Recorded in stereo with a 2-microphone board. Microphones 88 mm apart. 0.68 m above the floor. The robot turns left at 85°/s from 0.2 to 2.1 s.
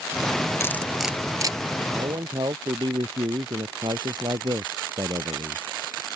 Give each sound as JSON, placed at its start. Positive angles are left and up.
{"t": 0.6, "sound": "cutlery clinking", "side_deg": 30}
{"t": 1.9, "sound": "a man speaking", "side_deg": -45}